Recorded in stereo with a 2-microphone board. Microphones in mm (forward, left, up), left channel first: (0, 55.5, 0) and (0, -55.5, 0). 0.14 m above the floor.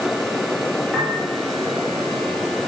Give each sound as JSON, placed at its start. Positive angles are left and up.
{"t": 0.9, "sound": "a piano", "side_deg": -10, "distance_m": 3.0}